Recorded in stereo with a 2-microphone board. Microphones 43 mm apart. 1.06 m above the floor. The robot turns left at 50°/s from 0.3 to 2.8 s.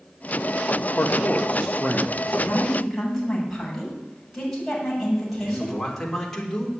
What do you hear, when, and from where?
0.9 s a man speaking: 70° left, 0.9 m; by 2.6 s 15° right, 0.9 m
2.4 s a woman speaking: 25° left (ahead or behind), 7 m; by 5.8 s 5° left (ahead or behind), 7 m
5.4 s a man speaking: 10° left (ahead or behind), 3.5 m